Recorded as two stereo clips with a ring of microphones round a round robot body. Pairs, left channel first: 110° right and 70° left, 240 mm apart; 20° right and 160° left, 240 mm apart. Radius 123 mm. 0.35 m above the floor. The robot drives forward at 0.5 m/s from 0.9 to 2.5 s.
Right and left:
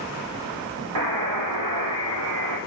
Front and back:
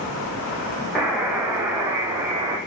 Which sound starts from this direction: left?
A buzzer, at 0.9 s.